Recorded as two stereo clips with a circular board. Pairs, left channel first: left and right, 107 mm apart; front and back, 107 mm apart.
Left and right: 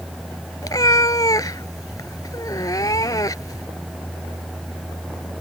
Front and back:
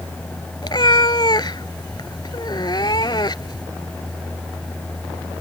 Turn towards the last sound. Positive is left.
turn(degrees=40)